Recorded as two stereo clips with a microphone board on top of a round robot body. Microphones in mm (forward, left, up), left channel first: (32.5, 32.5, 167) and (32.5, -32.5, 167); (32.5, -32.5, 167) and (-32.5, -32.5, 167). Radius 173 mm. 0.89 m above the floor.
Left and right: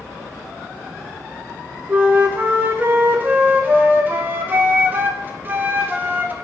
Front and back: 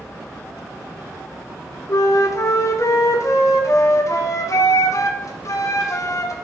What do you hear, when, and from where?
1.9 s a flute: 30° right, 1.3 m